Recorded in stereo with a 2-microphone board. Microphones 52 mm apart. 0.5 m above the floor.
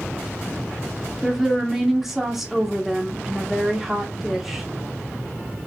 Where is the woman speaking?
5° right (ahead or behind), 1.2 m.